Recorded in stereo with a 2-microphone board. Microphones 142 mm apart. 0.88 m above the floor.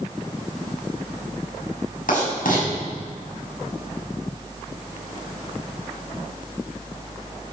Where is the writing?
75° left (ahead or behind), 7 m.